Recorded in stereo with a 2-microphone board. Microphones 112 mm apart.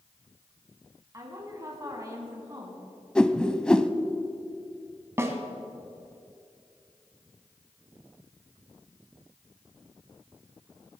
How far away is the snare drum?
About 1.6 m.